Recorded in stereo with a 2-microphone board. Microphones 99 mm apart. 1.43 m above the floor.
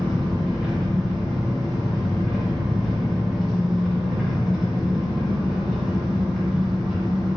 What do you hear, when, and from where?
0.0 s an engine running: centre (ahead or behind), 1.5 m